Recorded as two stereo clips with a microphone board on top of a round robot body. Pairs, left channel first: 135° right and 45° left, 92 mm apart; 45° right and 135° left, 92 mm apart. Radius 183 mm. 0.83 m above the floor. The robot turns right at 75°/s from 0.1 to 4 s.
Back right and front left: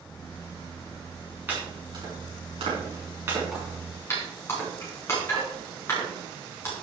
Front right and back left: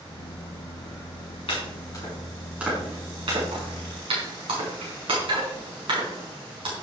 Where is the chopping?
25° right, 5 m; by 6.7 s 165° left, 5 m.